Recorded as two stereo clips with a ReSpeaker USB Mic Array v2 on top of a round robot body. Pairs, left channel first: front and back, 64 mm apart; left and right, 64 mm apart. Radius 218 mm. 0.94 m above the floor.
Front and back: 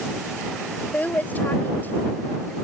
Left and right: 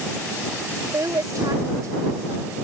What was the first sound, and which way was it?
A woman speaking, 65° right.